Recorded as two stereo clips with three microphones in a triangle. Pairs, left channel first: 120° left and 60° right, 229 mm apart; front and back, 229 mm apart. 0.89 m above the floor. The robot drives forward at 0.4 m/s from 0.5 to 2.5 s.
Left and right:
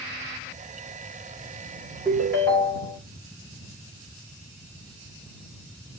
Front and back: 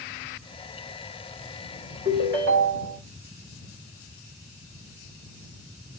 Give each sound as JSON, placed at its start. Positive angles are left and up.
{"t": 2.0, "sound": "a ringtone", "azimuth_deg": -160, "distance_m": 1.8}